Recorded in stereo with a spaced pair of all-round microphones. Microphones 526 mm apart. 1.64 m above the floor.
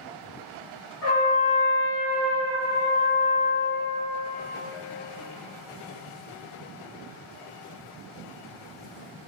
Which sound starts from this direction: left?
A trumpet, at 1.0 s.